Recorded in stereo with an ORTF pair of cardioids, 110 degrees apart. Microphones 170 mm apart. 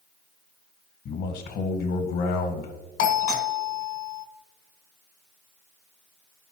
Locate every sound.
1.1 s a man speaking: 70° left, 1.3 m
3.0 s a doorbell: 70° left, 1.4 m